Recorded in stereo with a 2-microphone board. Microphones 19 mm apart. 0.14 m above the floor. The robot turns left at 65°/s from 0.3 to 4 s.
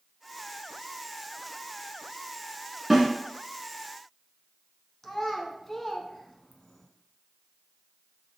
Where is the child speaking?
20° left (ahead or behind), 0.7 m.